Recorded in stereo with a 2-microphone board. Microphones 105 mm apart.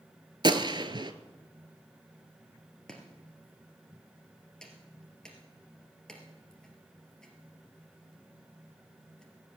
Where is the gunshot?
50° right (ahead or behind), 0.7 m.